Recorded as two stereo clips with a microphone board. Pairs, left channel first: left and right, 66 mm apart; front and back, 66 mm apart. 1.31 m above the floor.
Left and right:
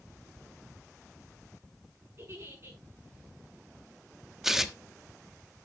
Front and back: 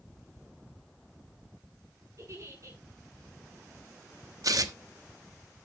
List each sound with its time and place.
2.2 s a giggle: 140° right, 7.5 m
4.4 s tearing paper: 175° right, 1.1 m